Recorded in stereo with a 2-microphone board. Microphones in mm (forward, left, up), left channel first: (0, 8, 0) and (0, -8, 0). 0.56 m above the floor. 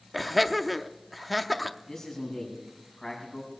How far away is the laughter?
About 0.7 m.